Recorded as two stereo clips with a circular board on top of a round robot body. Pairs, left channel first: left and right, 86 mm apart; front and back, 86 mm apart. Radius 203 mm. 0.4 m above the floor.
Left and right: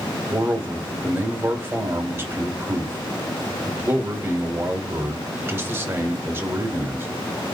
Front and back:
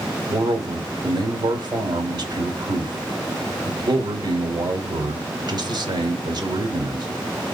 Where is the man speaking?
155° right, 1.7 m.